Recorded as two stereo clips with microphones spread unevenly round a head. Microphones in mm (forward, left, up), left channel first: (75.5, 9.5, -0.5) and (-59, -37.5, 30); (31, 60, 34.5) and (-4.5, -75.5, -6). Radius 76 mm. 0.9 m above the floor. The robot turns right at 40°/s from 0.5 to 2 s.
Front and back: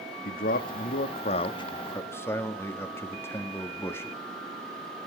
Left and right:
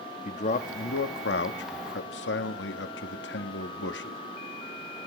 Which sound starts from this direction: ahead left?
A man speaking, at 0.2 s.